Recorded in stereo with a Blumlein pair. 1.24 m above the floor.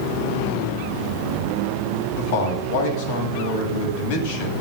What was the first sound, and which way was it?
A man speaking, 45° left.